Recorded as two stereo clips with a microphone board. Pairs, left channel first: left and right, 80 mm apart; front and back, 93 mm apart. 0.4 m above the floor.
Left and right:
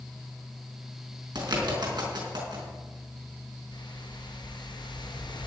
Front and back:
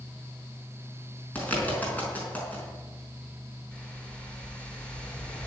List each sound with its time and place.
1.4 s a bird: 70° right, 4.5 m
3.7 s a whoosh: 80° left, 3.5 m